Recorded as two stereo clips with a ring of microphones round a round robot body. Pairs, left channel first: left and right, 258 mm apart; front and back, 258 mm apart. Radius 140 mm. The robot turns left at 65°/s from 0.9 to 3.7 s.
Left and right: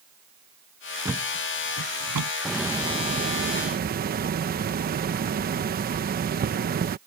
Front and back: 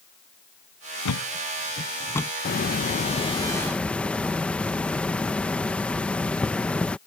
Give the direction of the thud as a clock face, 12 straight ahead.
12 o'clock.